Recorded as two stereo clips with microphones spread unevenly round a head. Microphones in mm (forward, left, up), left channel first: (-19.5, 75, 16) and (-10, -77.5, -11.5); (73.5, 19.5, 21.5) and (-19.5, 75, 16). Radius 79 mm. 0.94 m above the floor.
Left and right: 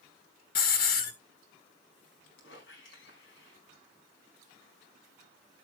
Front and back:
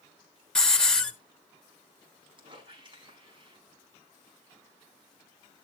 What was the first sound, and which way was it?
A hiss, 55° left.